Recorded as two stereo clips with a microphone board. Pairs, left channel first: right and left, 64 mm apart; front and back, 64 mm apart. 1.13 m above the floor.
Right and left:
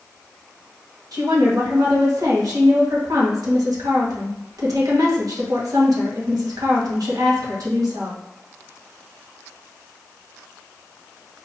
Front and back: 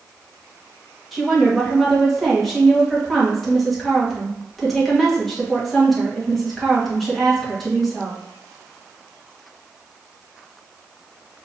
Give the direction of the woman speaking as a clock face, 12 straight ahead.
9 o'clock.